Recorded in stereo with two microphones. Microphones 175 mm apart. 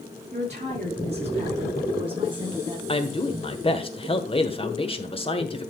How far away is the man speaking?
About 1.2 m.